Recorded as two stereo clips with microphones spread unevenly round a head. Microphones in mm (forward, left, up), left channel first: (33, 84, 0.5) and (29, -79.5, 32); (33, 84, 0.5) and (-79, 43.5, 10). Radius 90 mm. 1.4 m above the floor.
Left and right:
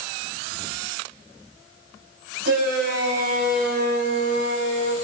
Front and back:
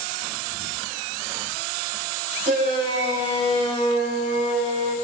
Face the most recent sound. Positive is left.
turn(degrees=-140)